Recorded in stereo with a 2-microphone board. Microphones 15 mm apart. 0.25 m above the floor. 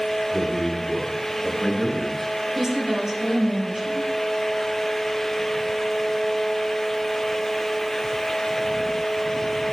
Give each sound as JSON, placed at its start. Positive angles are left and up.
{"t": 0.3, "sound": "a man speaking", "side_deg": 20, "distance_m": 3.0}
{"t": 2.5, "sound": "a woman speaking", "side_deg": -25, "distance_m": 4.5}